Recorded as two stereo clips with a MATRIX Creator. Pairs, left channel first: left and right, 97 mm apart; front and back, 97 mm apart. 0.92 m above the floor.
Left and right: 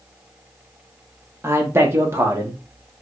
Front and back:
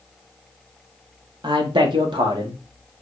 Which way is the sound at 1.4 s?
155° right.